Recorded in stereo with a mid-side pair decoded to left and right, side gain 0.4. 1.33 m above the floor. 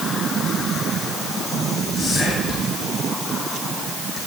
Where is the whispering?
70° left, 6.5 m.